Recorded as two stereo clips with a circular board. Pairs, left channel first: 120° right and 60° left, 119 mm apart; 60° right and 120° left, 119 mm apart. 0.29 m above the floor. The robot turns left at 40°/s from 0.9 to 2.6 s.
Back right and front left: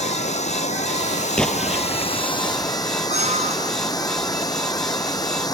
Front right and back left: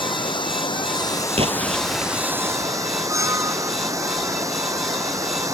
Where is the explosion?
160° left; by 2.2 s 125° left.